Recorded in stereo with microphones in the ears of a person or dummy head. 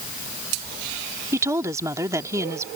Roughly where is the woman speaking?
Centre.